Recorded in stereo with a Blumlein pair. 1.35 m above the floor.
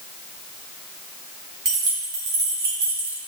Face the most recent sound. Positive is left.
turn(degrees=-75)